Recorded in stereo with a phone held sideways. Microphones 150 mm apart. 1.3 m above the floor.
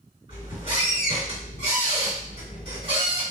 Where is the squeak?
40° right (ahead or behind), 1.8 m.